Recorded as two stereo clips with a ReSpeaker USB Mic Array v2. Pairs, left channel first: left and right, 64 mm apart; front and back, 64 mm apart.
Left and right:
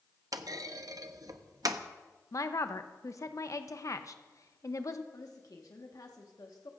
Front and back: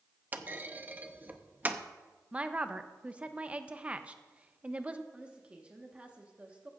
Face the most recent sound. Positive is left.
turn(degrees=110)